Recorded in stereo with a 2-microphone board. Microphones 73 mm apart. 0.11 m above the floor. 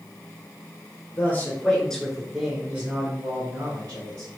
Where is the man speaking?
30° left (ahead or behind), 1.4 m; by 4.3 s 55° right (ahead or behind), 1.9 m.